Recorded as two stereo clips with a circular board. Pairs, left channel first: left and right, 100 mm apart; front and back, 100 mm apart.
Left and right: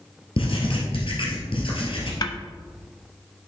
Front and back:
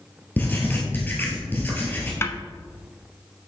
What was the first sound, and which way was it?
Writing, 70° left.